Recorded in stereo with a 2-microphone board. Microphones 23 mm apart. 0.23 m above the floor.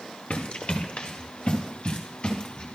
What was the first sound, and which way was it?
Running footsteps, 55° left (ahead or behind).